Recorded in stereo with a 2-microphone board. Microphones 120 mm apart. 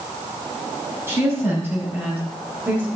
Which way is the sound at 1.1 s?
20° right (ahead or behind).